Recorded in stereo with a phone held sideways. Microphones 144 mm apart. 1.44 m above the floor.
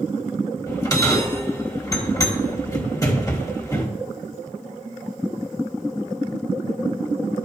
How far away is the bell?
About 1.3 m.